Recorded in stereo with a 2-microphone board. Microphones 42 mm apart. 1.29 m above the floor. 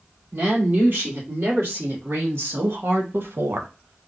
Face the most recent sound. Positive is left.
turn(degrees=-75)  # may be behind; listen again after turning